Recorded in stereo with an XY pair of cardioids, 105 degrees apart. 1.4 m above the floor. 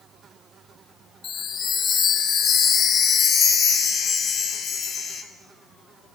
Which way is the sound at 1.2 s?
60° left.